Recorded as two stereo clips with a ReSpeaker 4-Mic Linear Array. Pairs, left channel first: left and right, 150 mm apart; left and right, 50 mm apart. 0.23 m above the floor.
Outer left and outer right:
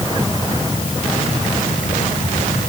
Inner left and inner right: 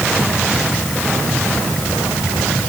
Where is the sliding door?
No sliding door in this recording.